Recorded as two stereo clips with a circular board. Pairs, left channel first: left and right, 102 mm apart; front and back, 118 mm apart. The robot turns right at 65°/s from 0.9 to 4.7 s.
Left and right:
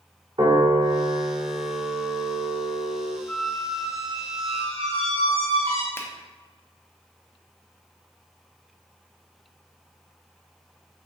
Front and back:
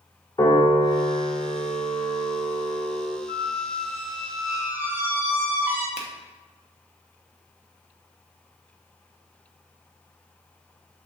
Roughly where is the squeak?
Behind.